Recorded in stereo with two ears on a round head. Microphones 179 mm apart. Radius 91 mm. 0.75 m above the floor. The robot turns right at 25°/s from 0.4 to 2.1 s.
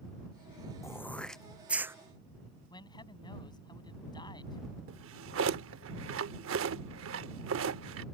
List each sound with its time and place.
0.8 s throat clearing: 15° left (ahead or behind); by 1.9 s 10° right (ahead or behind)
2.7 s a man speaking: 25° left (ahead or behind)
4.9 s a drawer: 75° right (ahead or behind)